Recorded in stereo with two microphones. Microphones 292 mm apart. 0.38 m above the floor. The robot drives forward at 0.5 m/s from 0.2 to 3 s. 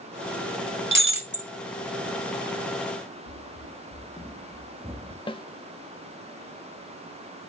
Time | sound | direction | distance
0.9 | breaking glass | 40° right (ahead or behind) | 1.2 m
3.3 | running footsteps | 55° left (ahead or behind) | 0.6 m
5.3 | a snare drum | 15° left (ahead or behind) | 0.6 m